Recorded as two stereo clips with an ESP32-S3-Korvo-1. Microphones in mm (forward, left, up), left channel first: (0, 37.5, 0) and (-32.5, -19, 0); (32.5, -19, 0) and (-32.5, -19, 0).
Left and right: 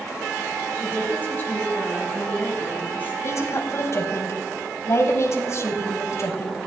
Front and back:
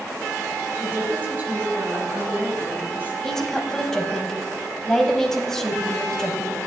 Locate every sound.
0.8 s a woman speaking: 120° left, 2.5 m
3.2 s a woman speaking: 80° left, 1.7 m